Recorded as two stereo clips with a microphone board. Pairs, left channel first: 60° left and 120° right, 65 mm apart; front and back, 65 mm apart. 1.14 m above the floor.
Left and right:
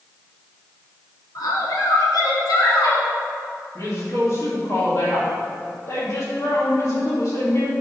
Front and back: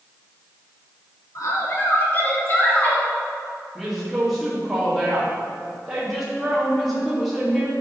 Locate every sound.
1.4 s a woman speaking: 35° left, 1.4 m; by 3.1 s 65° left, 3.5 m
3.8 s a woman speaking: 95° left, 2 m